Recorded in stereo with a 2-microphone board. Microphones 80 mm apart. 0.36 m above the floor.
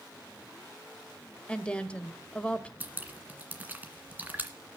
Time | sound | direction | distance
1.5 | a woman speaking | 15° left (ahead or behind) | 1.1 m
2.8 | dripping | 20° right (ahead or behind) | 1.9 m